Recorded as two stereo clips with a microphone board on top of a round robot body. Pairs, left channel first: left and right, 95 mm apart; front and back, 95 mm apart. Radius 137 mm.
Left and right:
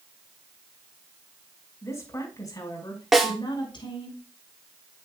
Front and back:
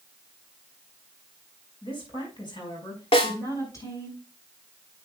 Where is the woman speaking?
30° left, 5 m; by 4.1 s 60° left, 5.5 m.